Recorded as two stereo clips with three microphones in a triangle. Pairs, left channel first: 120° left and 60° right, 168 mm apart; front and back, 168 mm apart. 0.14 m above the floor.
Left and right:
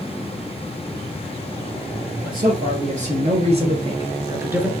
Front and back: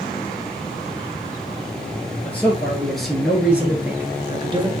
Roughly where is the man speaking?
Right.